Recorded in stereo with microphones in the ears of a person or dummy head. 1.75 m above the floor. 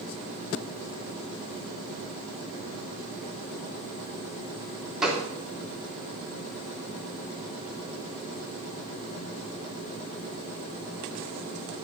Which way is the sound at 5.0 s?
Centre (ahead or behind).